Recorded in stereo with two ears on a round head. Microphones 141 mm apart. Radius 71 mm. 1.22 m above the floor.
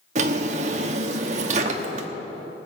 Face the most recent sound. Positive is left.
turn(degrees=-45)  # may be behind; listen again after turning